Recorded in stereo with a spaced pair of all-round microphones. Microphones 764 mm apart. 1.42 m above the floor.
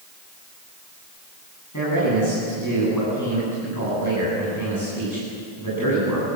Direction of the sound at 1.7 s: 25° left (ahead or behind).